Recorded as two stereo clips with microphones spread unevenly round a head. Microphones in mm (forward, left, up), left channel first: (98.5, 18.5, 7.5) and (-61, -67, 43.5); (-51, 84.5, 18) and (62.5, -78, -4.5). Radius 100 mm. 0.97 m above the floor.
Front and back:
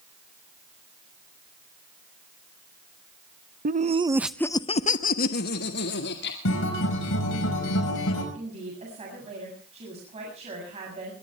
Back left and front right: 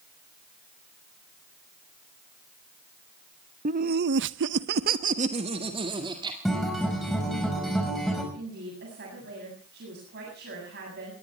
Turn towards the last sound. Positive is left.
turn(degrees=-95)